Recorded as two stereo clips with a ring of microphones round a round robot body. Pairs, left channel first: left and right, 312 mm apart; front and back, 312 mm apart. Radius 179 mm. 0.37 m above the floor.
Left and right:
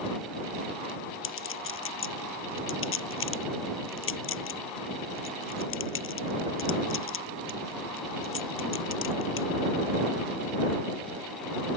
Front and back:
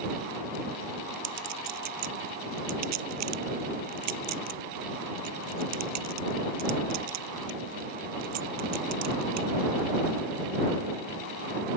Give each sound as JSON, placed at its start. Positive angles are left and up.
{"t": 1.2, "sound": "a clink", "azimuth_deg": 135}